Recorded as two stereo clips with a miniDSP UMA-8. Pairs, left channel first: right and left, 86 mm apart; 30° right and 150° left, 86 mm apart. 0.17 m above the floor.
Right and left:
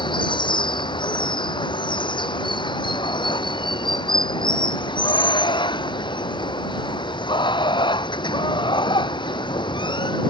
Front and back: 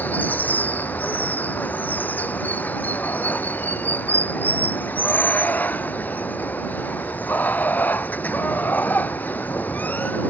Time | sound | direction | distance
0.0 | running water | 100° right | ?